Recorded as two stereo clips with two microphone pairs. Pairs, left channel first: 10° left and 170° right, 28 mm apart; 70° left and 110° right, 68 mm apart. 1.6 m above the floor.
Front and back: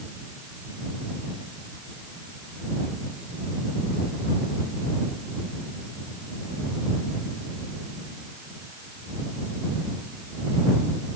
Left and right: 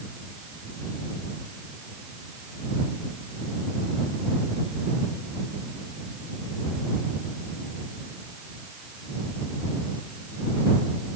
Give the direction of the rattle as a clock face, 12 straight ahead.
No rattle in this recording.